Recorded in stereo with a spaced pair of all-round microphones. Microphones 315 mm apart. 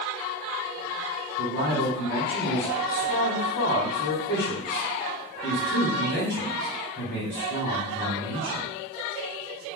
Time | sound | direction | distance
1.4 | a man speaking | 35° left (ahead or behind) | 1.0 m